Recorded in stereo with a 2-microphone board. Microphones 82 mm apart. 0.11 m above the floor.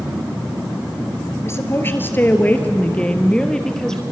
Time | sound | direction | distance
1.4 | a woman speaking | 35° left (ahead or behind) | 2 m